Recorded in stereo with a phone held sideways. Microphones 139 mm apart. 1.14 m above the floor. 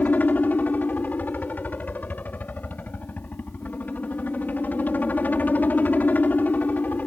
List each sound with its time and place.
0.0 s a helicopter: 10° left (ahead or behind)